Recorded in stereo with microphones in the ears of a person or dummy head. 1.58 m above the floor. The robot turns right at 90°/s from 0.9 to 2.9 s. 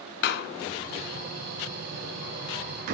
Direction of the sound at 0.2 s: 45° left (ahead or behind).